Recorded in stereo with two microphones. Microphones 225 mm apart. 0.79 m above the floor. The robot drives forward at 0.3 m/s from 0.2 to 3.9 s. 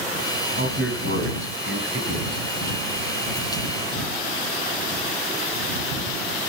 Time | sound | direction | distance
0.6 | a man speaking | 60° right (ahead or behind) | 5.5 m